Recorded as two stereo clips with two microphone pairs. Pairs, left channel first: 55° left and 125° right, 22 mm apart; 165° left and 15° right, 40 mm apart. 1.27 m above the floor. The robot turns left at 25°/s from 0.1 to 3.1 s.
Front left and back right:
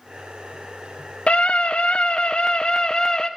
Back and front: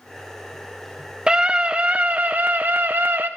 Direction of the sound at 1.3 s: 50° left.